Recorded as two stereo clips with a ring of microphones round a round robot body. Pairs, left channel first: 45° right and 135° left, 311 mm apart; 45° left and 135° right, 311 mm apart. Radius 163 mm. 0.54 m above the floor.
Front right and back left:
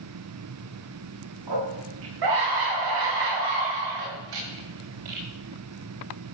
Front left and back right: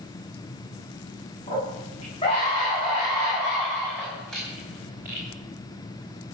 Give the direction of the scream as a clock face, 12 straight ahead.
8 o'clock.